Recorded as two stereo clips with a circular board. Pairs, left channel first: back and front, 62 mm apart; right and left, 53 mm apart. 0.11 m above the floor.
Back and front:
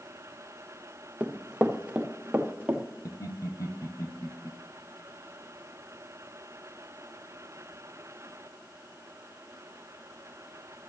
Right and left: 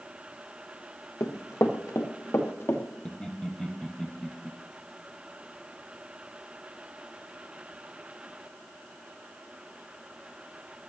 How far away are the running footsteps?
About 1.5 m.